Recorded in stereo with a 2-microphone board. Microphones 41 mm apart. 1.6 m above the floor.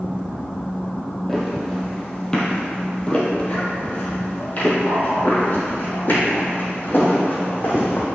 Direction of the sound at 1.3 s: 5° left (ahead or behind).